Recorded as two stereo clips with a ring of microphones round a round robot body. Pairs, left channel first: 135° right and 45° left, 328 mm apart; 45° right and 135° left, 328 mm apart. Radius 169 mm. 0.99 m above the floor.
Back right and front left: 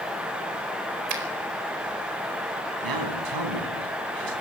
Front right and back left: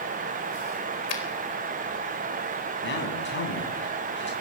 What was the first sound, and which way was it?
A finger snap, 5° left.